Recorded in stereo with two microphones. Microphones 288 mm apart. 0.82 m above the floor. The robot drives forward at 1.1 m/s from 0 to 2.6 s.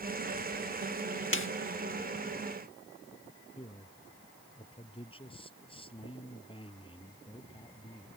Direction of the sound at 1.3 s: 45° left (ahead or behind).